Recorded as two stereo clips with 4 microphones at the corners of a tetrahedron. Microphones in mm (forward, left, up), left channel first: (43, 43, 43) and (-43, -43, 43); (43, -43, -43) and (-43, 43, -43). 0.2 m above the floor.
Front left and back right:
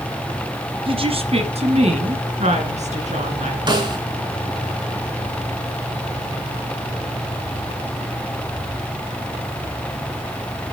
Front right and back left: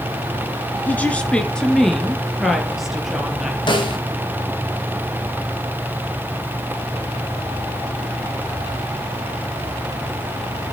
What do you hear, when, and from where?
0.9 s a woman speaking: 115° right, 2.5 m; by 3.6 s 140° right, 4.5 m
3.7 s a snare drum: 90° right, 3.5 m